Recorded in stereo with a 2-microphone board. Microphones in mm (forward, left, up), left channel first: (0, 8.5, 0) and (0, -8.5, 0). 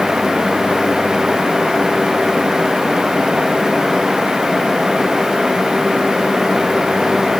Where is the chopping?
No chopping in this recording.